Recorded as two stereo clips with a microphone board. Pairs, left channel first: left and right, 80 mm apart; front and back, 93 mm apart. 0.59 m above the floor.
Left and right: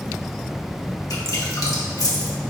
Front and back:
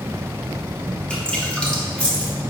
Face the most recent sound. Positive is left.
turn(degrees=70)